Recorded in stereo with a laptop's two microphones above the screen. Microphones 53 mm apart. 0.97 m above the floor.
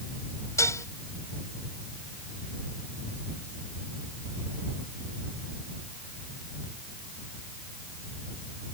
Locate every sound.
0.6 s dishes clattering: 75° left (ahead or behind)